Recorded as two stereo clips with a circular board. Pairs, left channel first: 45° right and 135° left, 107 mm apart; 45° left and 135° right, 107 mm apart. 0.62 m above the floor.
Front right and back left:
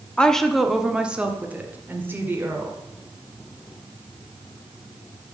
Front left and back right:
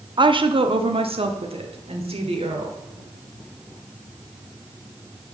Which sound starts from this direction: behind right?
A woman speaking, at 0.2 s.